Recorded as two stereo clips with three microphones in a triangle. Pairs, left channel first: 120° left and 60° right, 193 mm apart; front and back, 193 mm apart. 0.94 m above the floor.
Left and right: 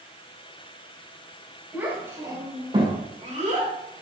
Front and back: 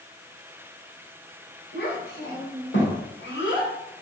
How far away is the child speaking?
About 3 m.